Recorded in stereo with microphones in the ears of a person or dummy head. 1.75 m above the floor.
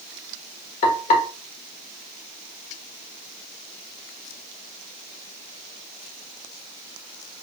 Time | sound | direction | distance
0.8 | frying | 40° left (ahead or behind) | 1.4 m